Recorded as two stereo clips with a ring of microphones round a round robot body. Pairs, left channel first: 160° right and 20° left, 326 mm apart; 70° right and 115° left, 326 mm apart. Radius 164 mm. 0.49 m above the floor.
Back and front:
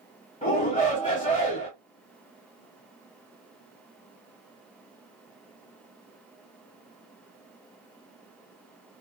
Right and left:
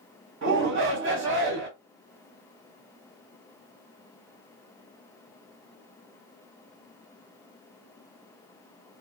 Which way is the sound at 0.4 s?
135° left.